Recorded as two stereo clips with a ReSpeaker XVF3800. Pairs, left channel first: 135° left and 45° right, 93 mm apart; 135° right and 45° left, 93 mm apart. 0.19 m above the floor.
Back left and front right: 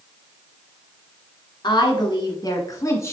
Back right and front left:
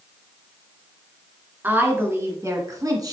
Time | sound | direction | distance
1.6 | a woman speaking | 110° left | 1.8 m